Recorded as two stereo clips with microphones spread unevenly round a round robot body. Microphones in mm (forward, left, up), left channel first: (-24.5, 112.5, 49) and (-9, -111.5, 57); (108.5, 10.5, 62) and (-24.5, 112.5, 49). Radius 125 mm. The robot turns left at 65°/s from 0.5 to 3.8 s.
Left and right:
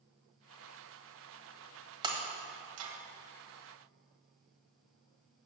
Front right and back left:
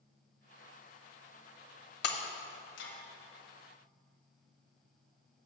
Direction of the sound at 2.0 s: 10° right.